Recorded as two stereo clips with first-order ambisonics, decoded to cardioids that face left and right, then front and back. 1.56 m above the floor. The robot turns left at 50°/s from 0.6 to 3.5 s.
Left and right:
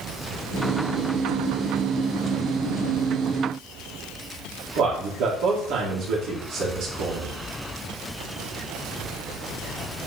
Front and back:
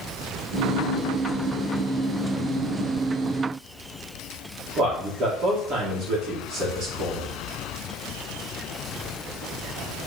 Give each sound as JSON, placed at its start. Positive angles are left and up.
{"t": 4.8, "sound": "a man speaking", "azimuth_deg": -130, "distance_m": 2.0}